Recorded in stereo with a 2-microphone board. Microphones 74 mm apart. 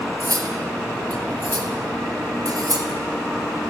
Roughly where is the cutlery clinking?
Right.